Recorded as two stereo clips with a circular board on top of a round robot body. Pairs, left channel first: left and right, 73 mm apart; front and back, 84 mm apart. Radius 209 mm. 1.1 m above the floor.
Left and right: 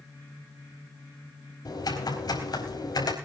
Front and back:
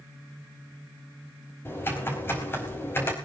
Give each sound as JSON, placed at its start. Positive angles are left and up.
{"t": 1.6, "sound": "typing on a keyboard", "azimuth_deg": 60, "distance_m": 4.5}